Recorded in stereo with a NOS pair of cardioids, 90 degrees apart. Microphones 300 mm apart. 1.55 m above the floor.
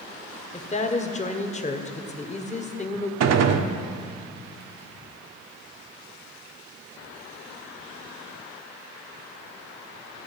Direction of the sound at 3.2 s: 60° right.